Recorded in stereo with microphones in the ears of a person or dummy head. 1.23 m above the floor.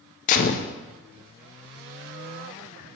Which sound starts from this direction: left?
A gunshot, at 0.3 s.